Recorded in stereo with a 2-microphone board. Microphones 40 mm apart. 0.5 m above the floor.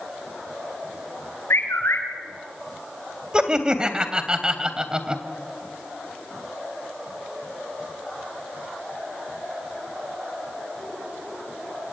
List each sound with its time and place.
1.5 s a bird: 85° left, 5.5 m
3.3 s laughter: 20° right (ahead or behind), 2.5 m